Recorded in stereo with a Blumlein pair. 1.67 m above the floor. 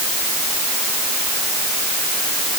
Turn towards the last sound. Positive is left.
No sound to turn to.